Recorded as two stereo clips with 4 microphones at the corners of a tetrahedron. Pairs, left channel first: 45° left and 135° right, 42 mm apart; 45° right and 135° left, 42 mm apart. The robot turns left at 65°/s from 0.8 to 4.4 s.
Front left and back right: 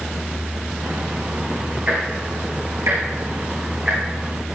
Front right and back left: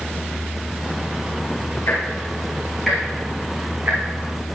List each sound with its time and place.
1.9 s ticking: 60° right, 5 m; by 4.6 s 135° left, 5 m